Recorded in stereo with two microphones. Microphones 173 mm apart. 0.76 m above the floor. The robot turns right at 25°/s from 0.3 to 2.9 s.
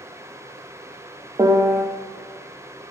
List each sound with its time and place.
1.4 s a piano: 20° right (ahead or behind), 0.5 m; by 1.9 s 15° right (ahead or behind), 0.5 m